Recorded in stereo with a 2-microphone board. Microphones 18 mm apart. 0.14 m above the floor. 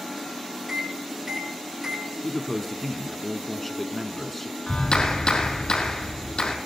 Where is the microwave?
10° right (ahead or behind), 4.5 m.